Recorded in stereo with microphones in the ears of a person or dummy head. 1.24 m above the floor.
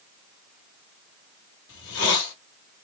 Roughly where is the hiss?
Left.